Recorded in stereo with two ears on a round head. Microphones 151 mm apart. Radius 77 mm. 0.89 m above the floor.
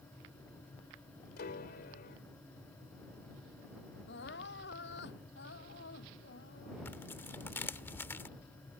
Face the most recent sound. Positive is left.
turn(degrees=15)  # may be behind; listen again after turning